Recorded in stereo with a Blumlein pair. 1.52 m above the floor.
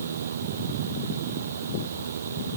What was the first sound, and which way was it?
A fan, 70° right.